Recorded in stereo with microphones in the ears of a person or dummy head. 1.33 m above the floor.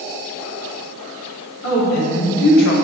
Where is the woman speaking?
65° left (ahead or behind), 1.6 m; by 2.8 s 55° left (ahead or behind), 0.6 m.